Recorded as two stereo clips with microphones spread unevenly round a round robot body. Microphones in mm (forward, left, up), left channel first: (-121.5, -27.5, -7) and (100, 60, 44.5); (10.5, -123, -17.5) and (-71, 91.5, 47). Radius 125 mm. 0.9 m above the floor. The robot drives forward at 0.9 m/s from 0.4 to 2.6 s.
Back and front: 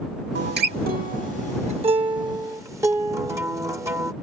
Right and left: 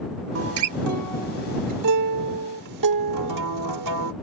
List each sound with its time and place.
0.3 s a guitar: 70° left; by 4.1 s 100° left